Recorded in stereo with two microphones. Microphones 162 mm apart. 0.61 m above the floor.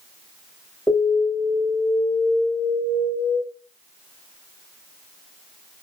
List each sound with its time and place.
0.9 s an alarm: centre (ahead or behind), 1.6 m